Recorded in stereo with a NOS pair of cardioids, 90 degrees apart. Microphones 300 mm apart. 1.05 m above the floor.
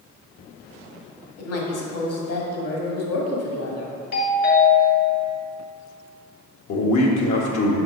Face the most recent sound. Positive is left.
turn(degrees=65)